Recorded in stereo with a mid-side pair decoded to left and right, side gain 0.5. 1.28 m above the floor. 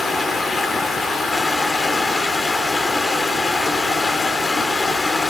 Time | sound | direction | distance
0.0 | running water | 30° left | 2 m